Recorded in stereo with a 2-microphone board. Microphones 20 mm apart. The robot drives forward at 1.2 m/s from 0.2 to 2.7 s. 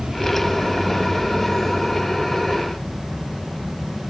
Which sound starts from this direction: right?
An insect, at 0.0 s.